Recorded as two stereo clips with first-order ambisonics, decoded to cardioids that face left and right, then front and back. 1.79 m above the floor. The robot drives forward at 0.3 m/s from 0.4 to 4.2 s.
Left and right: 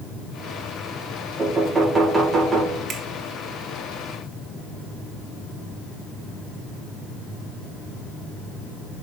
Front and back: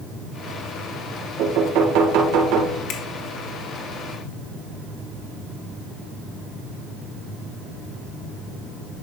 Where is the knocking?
165° right, 1.5 m; by 2.8 s 170° right, 1.9 m.